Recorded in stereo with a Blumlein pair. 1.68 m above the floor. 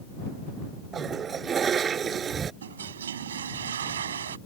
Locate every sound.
0.9 s a toilet flushing: 20° right
2.6 s a toilet flushing: 65° right